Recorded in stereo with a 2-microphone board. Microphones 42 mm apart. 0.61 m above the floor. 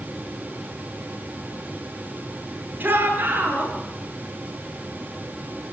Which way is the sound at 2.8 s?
45° right (ahead or behind).